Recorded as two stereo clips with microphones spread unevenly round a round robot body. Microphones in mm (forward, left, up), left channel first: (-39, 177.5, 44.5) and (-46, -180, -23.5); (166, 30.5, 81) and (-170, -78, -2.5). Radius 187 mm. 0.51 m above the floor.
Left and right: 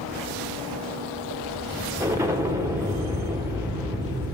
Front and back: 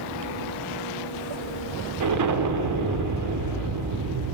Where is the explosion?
165° right, 1.0 m.